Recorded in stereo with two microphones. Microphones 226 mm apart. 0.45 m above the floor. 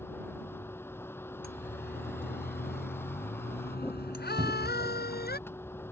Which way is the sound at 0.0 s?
10° left (ahead or behind).